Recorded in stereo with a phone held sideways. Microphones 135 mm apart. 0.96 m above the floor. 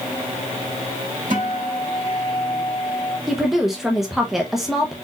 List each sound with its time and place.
1.3 s a guitar: 85° right, 3 m
3.3 s a woman speaking: centre (ahead or behind), 0.8 m